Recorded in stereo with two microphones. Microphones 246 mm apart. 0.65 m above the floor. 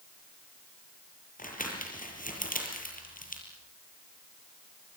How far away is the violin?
I don't hear a violin.